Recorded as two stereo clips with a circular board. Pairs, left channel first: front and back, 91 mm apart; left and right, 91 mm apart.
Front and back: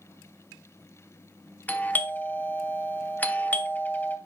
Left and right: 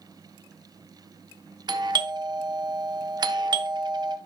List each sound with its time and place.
1.7 s a doorbell: 65° right, 1.0 m